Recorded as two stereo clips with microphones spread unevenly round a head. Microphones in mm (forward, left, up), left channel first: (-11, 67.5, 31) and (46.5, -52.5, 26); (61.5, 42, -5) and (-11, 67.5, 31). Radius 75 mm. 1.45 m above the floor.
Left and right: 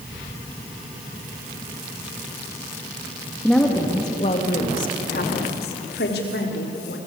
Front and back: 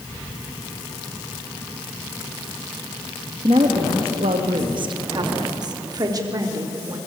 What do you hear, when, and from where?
3.4 s a woman speaking: 155° right, 2 m; by 7.0 s 115° left, 5 m